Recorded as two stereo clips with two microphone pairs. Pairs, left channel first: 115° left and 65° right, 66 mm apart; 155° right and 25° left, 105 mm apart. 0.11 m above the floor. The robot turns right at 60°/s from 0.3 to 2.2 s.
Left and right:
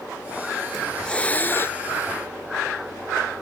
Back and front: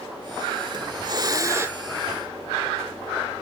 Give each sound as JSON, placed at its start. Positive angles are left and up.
{"t": 0.7, "sound": "a hiss", "azimuth_deg": 25, "distance_m": 0.5}